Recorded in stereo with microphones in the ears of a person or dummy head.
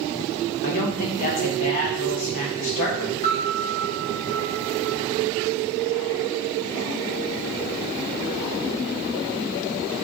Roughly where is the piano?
Left.